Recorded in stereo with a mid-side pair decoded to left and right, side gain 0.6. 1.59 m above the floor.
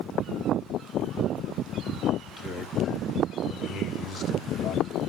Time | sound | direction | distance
2.2 | a man speaking | 35° left | 3.5 m